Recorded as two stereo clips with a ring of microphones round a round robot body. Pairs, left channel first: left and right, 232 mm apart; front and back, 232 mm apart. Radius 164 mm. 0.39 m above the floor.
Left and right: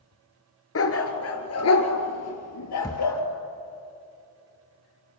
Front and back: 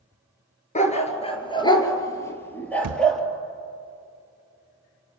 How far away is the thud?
About 0.7 m.